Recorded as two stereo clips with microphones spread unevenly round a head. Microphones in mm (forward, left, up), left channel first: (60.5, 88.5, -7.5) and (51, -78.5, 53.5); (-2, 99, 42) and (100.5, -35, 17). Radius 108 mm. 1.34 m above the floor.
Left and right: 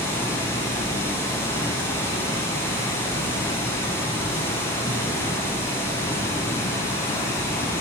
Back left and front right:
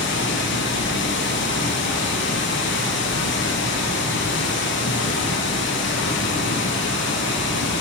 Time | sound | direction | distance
0.0 | running water | 165° left | 0.7 m